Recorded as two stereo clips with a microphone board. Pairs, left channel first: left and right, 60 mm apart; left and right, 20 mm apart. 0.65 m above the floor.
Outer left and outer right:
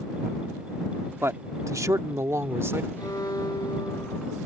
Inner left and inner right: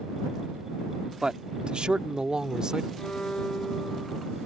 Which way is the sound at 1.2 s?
45° right (ahead or behind).